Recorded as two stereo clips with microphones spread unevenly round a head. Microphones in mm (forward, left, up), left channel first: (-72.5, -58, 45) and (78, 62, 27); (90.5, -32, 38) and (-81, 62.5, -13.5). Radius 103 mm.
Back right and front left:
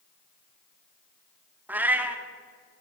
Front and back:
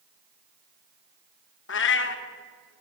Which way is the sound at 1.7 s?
45° right.